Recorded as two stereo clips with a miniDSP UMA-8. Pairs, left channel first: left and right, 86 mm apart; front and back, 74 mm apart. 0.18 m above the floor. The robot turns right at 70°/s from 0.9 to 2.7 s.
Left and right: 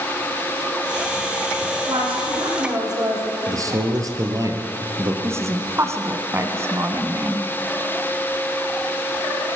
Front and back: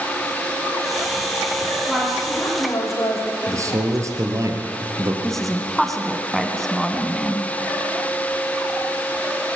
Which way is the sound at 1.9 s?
105° right.